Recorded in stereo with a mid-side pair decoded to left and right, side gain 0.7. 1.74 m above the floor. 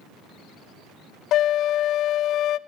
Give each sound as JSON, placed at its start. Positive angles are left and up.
{"t": 1.3, "sound": "a flute", "azimuth_deg": 50, "distance_m": 0.5}